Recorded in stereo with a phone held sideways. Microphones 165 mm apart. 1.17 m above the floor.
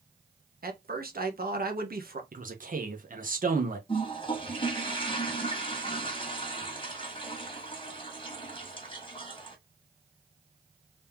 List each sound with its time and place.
0.6 s a man speaking: 65° right (ahead or behind), 1.2 m
2.3 s a man speaking: 55° right (ahead or behind), 1.3 m
3.9 s a toilet flushing: 35° left (ahead or behind), 1.5 m